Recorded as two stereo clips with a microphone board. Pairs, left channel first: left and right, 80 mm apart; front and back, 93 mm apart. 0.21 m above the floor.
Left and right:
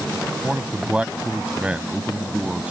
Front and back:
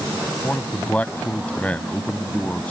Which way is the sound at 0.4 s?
45° right.